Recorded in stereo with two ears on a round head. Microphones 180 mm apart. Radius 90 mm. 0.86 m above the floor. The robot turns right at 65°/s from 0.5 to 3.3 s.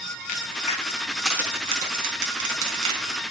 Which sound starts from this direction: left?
A crack, at 0.3 s.